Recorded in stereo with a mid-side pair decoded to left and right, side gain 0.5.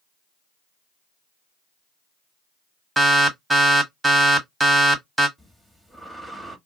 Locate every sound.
3.0 s an alarm: 20° right, 1.5 m
5.4 s breathing: 5° right, 1.2 m